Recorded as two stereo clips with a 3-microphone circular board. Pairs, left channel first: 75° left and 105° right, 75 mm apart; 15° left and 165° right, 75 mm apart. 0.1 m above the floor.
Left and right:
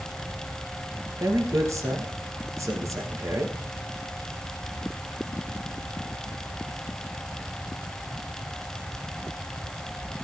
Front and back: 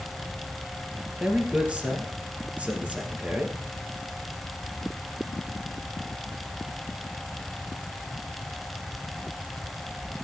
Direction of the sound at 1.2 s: 100° right.